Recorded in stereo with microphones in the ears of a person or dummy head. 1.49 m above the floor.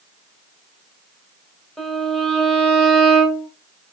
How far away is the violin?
About 2.5 m.